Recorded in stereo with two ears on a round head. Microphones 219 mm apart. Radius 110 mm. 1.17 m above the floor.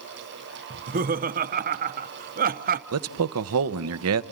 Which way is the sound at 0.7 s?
35° right (ahead or behind).